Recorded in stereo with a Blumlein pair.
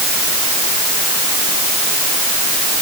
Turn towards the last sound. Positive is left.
No sound to turn to.